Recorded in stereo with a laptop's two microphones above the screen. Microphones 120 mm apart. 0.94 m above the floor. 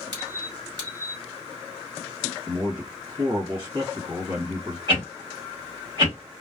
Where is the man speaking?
40° right (ahead or behind), 1.5 m.